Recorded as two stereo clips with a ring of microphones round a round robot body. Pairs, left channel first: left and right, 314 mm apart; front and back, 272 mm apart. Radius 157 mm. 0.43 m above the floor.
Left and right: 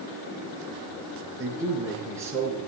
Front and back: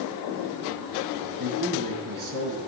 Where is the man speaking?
170° right, 5 m.